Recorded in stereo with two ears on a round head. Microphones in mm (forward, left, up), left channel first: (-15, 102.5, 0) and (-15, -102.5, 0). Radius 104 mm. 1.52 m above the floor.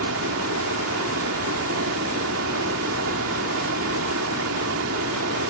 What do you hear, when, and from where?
0.0 s running water: 60° right (ahead or behind)